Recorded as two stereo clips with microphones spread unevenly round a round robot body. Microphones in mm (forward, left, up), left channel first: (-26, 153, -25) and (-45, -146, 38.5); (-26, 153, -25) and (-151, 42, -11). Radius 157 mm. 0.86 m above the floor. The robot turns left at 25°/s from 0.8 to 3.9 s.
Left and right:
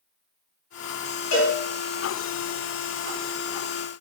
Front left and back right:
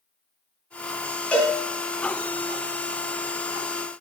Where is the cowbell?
125° left, 3 m; by 1.6 s 120° left, 3 m.